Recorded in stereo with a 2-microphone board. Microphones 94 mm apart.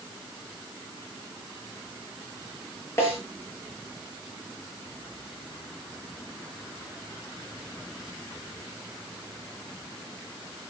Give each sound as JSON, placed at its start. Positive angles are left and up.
{"t": 3.0, "sound": "a snare drum", "side_deg": 30, "distance_m": 7.5}